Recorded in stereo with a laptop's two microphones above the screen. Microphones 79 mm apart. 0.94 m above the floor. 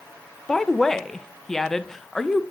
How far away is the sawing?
I don't hear sawing.